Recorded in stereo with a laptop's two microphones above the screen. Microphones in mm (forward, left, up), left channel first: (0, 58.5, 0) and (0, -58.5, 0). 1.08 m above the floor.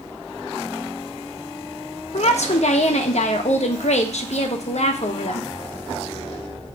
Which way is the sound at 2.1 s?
70° left (ahead or behind).